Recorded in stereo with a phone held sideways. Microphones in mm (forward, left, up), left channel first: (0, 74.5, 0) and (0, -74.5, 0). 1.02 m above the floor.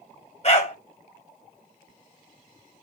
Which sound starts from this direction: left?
A dog barking, at 0.4 s.